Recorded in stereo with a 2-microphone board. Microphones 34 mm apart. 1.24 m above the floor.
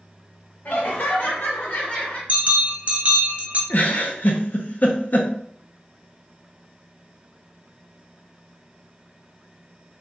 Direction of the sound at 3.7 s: 50° left (ahead or behind).